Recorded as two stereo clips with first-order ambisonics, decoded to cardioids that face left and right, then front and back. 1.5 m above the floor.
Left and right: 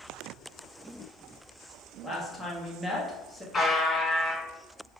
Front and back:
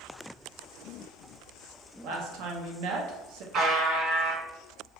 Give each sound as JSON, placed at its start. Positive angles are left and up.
{"t": 2.0, "sound": "a woman speaking", "azimuth_deg": 180, "distance_m": 0.5}
{"t": 3.5, "sound": "a buzzer", "azimuth_deg": 160, "distance_m": 1.8}